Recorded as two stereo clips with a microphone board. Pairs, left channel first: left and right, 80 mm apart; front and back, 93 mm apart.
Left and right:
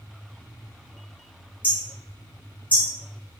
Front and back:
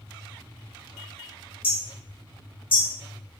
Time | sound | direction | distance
1.6 | hammering | 20° left | 2.5 m